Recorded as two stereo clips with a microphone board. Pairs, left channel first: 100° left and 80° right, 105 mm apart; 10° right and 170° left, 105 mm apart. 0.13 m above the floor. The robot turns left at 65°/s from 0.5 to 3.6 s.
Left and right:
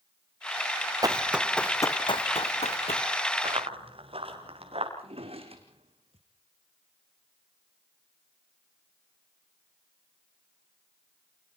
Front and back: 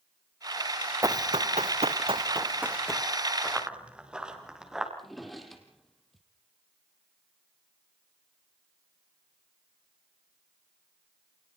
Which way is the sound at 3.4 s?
100° right.